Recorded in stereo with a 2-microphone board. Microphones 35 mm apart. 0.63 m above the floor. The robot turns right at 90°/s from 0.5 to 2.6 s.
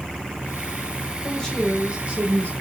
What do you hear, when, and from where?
1.2 s a woman speaking: 150° left, 2.5 m; by 2.5 s 95° right, 2.5 m